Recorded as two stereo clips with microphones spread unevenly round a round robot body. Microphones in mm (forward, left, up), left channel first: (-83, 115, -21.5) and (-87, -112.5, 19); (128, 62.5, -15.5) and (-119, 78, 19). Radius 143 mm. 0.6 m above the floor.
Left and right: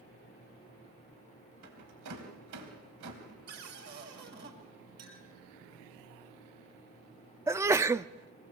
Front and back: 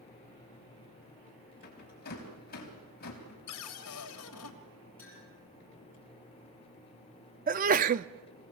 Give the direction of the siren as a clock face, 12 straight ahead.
I don't hear a siren.